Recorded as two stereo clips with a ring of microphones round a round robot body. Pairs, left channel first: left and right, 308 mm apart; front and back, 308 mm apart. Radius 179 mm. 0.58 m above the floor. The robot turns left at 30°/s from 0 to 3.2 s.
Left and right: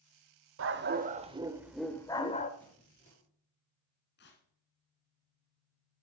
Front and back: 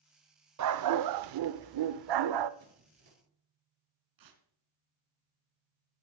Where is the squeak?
175° left, 8 m; by 3.2 s 160° left, 8 m.